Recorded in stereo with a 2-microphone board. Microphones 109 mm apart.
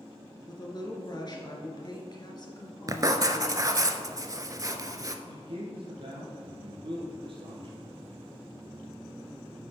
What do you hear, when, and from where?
0.5 s a woman speaking: 40° left (ahead or behind), 1.4 m
2.9 s writing: 35° right (ahead or behind), 0.5 m
5.3 s a man speaking: 50° right (ahead or behind), 3 m